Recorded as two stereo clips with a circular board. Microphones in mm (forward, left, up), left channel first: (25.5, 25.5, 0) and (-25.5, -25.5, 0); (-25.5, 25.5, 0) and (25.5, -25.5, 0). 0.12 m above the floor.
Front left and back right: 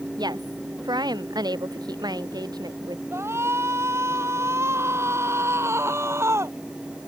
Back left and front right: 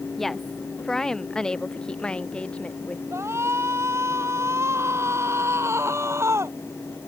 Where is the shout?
90° right.